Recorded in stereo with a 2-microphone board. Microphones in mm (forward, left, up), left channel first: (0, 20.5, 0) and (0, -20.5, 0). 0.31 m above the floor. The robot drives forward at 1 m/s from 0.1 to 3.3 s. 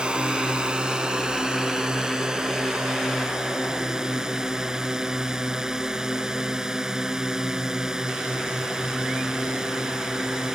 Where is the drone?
25° right (ahead or behind); by 10.6 s 15° right (ahead or behind).